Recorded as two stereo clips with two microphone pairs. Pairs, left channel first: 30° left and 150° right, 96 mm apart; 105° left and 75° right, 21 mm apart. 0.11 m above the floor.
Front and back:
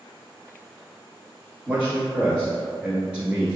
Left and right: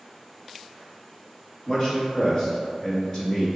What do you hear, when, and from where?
1.7 s a man speaking: 145° left, 1.3 m